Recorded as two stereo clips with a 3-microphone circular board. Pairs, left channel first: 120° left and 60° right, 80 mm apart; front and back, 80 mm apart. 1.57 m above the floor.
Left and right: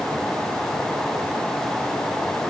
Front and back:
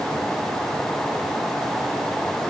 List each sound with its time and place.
Only background noise.